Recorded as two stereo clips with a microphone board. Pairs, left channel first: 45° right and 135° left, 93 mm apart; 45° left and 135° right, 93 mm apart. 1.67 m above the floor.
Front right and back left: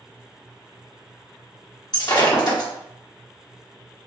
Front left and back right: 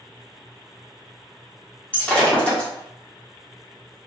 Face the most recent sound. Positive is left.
turn(degrees=-25)